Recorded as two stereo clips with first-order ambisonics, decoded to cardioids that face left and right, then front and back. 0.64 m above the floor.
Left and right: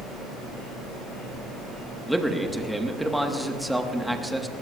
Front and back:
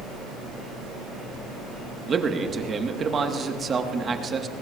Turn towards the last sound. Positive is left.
turn(degrees=-175)